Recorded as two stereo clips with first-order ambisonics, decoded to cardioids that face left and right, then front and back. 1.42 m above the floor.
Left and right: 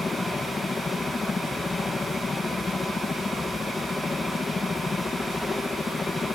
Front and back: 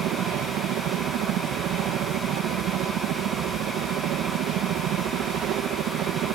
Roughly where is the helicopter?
Behind.